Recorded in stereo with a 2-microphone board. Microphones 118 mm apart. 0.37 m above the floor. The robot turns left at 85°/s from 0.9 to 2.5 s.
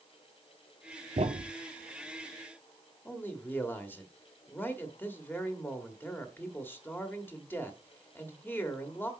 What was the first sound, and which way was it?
A thud, 80° right.